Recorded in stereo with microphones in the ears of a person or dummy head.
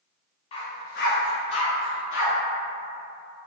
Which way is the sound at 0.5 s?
30° left (ahead or behind).